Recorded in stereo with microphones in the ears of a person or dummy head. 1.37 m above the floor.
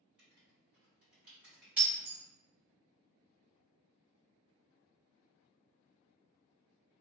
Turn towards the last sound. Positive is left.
turn(degrees=-5)  # may be behind; listen again after turning